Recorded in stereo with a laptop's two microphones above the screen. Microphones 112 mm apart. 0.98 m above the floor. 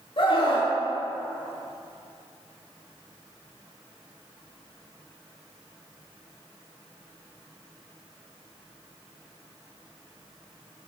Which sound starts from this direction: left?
A scream, at 0.2 s.